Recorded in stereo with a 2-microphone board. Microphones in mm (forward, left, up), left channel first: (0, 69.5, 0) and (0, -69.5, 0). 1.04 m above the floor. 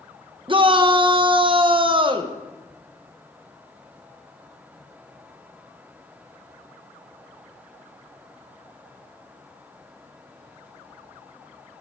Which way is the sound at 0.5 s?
40° right (ahead or behind).